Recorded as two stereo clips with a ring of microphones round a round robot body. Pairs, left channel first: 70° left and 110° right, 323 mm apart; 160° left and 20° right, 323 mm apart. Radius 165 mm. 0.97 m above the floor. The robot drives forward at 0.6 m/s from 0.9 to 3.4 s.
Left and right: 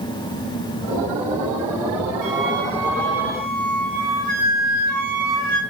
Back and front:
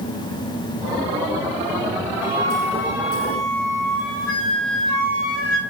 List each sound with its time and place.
2.2 s a flute: 125° right, 0.9 m; by 5.6 s 150° right, 1.4 m